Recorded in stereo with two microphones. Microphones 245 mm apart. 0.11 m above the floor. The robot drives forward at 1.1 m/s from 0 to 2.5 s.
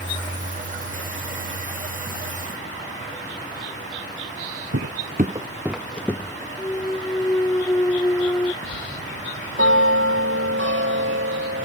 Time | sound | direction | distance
4.7 | footsteps | 70° right (ahead or behind) | ?
6.6 | a clunk | 10° left (ahead or behind) | ?
8.6 | a bell | 60° right (ahead or behind) | ?